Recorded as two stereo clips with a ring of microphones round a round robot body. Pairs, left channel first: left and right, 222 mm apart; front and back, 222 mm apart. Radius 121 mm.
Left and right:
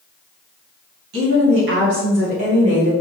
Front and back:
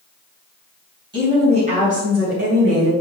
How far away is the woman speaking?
About 2.5 m.